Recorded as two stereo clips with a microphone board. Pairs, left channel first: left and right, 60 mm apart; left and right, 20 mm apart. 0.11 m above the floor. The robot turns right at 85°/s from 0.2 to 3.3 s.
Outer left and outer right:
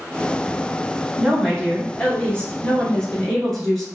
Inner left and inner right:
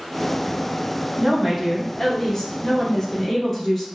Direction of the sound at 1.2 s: 10° right (ahead or behind).